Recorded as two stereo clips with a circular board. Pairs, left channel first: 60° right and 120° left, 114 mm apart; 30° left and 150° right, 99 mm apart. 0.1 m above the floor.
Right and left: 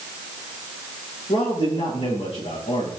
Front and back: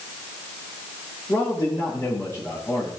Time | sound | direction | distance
1.3 | a man speaking | 30° right | 7.5 m